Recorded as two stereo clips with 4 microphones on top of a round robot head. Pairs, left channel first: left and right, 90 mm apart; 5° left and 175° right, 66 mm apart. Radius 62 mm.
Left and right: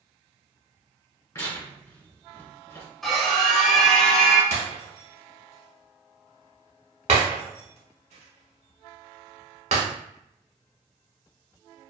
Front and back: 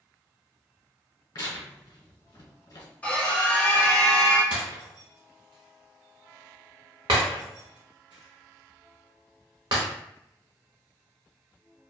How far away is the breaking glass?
About 0.8 m.